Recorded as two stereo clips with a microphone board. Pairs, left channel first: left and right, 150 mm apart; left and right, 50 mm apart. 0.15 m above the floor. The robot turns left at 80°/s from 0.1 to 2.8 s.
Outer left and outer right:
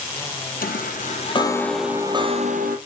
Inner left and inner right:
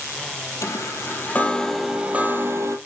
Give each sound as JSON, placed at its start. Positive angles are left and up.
{"t": 0.6, "sound": "a chime", "azimuth_deg": 95, "distance_m": 1.2}